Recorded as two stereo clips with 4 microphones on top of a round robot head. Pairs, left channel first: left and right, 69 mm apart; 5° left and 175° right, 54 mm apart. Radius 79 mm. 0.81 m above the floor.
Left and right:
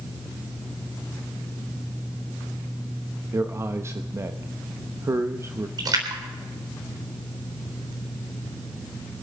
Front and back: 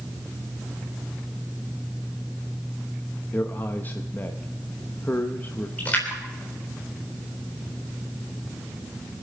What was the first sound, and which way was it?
A man speaking, 45° right.